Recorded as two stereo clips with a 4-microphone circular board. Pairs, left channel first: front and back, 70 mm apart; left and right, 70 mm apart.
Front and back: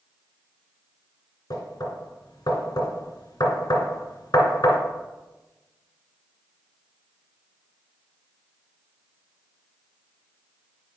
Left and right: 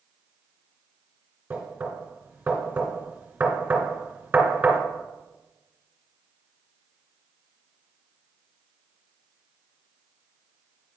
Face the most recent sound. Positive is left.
turn(degrees=-25)